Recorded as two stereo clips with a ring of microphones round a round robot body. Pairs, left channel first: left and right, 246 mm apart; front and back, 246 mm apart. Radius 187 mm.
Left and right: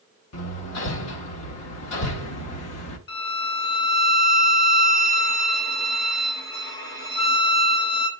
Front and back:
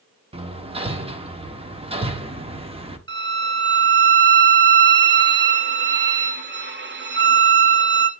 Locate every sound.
0.3 s hammering: 110° left, 1.3 m
3.1 s a violin: 140° left, 1.2 m